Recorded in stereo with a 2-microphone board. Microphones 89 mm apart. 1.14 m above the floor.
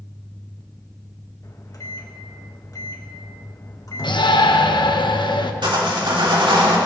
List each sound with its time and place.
1.4 s a microwave: 45° left (ahead or behind), 1.3 m
4.0 s a shout: 65° left (ahead or behind), 1.0 m
5.6 s sawing: 80° right, 2.5 m